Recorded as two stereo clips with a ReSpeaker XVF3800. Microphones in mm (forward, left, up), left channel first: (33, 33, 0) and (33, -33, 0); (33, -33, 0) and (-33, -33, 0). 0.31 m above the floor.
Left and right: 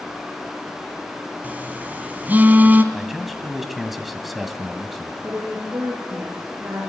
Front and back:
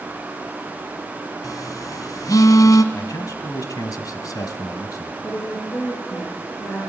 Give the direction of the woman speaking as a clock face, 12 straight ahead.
1 o'clock.